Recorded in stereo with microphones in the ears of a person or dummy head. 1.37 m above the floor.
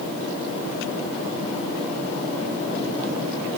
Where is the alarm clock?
No alarm clock in this recording.